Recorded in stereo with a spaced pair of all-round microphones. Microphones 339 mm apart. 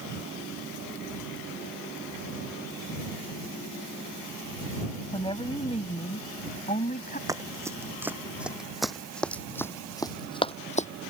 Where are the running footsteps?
10° right (ahead or behind); by 10.9 s 20° left (ahead or behind).